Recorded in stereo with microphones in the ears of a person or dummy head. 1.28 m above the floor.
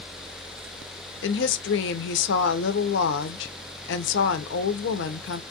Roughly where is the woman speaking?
Left.